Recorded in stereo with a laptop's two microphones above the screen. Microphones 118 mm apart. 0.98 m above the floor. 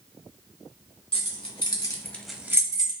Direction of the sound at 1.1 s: 60° left (ahead or behind).